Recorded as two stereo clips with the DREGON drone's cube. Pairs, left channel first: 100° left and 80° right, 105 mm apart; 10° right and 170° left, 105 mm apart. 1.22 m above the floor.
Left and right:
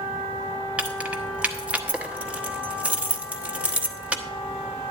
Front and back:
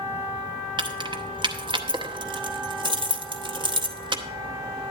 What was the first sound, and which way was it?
Keys jangling, 155° right.